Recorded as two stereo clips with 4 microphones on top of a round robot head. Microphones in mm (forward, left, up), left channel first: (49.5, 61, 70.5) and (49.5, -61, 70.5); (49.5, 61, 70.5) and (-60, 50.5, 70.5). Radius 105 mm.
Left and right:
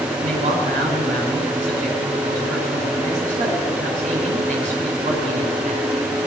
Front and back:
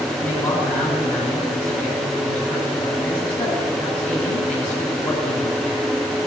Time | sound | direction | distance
0.2 | a man speaking | 75° right | 5.5 m